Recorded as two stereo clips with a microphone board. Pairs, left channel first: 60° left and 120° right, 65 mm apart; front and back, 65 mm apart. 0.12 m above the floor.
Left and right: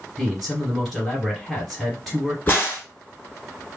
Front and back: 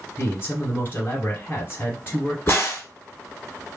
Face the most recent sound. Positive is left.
turn(degrees=20)